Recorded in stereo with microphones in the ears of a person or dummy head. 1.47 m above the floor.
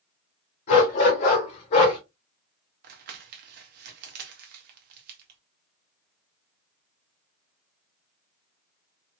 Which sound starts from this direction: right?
Crumpling, at 2.8 s.